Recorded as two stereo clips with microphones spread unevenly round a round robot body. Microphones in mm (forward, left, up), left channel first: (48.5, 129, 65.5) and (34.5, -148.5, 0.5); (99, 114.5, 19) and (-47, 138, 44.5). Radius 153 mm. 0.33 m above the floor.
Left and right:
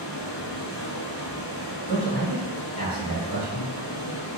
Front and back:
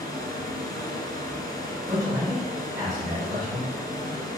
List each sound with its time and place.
0.0 s running water: 60° left, 0.9 m
1.9 s a man speaking: 110° left, 1.7 m